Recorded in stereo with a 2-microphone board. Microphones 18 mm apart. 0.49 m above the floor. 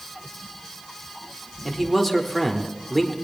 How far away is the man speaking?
About 1.0 m.